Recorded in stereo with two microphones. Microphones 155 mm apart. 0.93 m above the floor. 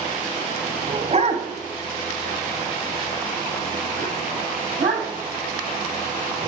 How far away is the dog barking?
About 1.7 m.